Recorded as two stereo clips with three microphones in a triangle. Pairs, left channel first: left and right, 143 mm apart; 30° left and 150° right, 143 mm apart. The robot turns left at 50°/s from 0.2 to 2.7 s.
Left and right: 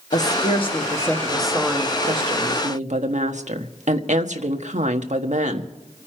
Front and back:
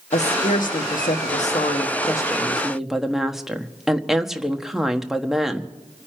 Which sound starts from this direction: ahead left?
A woman speaking, at 0.1 s.